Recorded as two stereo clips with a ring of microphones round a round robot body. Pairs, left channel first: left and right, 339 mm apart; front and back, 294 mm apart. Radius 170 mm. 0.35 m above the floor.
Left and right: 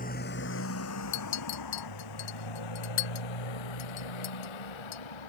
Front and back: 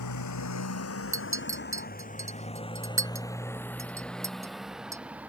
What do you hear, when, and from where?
0.0 s a motorcycle: 25° left; by 5.3 s 95° left
1.1 s a clink: 100° left